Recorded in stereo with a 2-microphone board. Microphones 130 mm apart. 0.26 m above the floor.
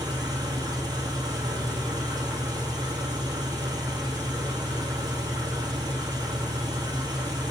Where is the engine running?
35° right (ahead or behind), 1.9 m.